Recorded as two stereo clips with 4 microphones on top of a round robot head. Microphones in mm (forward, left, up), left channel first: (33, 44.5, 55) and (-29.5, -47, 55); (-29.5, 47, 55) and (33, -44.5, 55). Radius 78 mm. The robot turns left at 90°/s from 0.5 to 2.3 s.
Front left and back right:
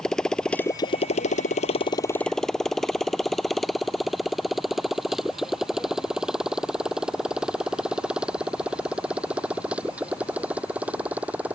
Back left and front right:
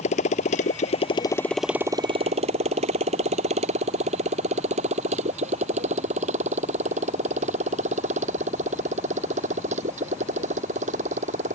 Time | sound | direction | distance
0.0 | a motorcycle | 140° left | ?